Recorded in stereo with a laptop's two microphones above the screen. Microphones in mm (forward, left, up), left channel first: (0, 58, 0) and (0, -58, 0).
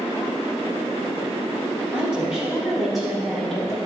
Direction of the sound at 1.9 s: 10° right (ahead or behind).